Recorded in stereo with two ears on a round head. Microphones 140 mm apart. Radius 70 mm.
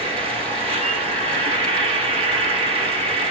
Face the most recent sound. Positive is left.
turn(degrees=-35)  # may be behind; listen again after turning